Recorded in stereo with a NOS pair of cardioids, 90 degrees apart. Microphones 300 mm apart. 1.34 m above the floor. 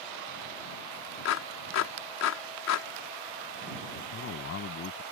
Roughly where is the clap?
Ahead left.